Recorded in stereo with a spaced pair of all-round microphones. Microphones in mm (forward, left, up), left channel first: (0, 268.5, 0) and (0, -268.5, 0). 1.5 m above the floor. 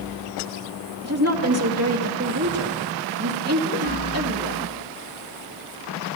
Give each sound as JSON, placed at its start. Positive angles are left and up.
{"t": 1.0, "sound": "a woman speaking", "side_deg": -25, "distance_m": 2.5}